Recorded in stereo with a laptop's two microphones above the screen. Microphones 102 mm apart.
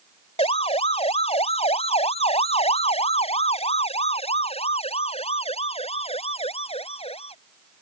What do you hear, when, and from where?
0.4 s a siren: 80° left; by 7.3 s 75° left (ahead or behind)